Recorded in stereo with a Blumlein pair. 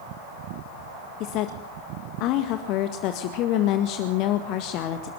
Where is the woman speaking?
40° left, 1.7 m.